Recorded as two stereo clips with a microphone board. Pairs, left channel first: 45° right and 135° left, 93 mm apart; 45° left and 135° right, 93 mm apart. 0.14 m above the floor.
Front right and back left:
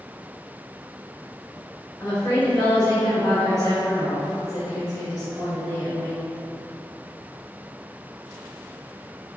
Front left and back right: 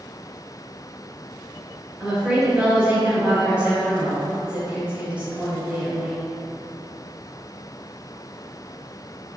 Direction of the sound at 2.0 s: 75° right.